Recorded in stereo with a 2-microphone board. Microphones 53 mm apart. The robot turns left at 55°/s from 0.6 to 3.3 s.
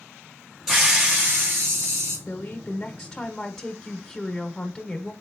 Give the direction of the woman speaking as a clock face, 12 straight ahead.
10 o'clock.